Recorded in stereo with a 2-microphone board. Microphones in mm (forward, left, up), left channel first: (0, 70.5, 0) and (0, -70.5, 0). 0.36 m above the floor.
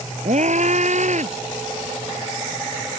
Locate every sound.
0.2 s a scream: 60° right (ahead or behind)